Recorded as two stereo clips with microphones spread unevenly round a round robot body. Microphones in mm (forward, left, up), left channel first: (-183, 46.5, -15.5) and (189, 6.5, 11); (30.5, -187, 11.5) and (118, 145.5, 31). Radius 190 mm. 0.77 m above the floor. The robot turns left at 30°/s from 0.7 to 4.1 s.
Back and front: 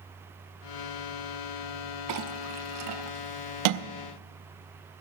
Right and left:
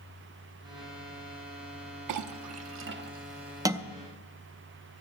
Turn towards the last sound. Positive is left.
turn(degrees=-20)